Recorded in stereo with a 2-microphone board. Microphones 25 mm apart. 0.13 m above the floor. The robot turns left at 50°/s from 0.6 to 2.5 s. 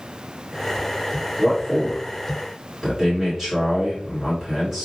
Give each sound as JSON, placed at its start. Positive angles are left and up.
{"t": 1.4, "sound": "a man speaking", "azimuth_deg": -125, "distance_m": 2.0}